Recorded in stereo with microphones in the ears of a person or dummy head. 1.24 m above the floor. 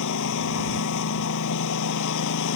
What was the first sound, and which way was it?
A lawn mower, 70° left (ahead or behind).